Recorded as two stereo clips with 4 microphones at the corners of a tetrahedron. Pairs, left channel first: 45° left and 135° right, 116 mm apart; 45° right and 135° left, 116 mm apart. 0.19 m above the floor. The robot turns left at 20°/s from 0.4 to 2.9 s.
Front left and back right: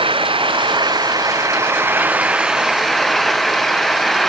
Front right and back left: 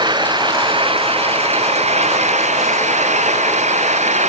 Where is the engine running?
175° right; by 4.3 s 135° left.